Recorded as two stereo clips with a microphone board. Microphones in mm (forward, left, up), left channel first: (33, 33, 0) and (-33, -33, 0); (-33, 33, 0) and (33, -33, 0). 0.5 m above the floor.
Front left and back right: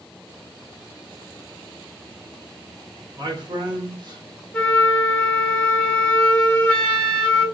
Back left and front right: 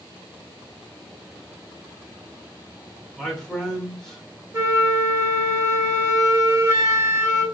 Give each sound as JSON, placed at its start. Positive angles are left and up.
{"t": 3.1, "sound": "a man speaking", "azimuth_deg": -145, "distance_m": 1.6}
{"t": 4.5, "sound": "a flute", "azimuth_deg": -20, "distance_m": 1.2}